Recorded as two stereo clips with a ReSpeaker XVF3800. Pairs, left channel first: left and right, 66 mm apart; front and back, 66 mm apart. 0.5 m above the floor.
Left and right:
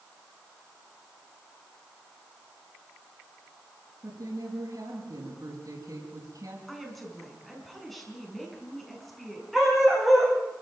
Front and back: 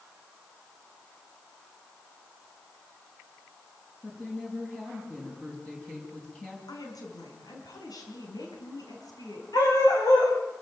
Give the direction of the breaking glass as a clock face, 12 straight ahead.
I don't hear breaking glass.